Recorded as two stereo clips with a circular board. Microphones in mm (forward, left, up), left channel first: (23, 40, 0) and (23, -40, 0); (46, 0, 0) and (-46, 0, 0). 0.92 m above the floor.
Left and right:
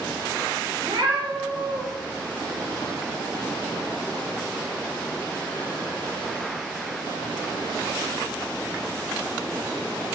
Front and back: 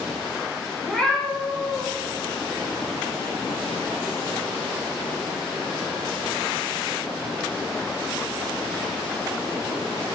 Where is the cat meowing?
80° right, 2.5 m.